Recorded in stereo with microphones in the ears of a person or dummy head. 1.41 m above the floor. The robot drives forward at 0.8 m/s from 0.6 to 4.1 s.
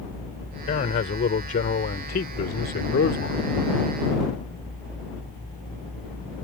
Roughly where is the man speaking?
Left.